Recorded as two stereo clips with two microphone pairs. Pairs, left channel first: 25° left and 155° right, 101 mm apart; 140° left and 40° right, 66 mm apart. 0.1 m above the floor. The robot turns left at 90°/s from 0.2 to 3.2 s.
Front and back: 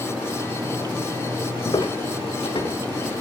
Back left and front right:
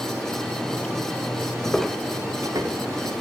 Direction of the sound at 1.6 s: 80° left.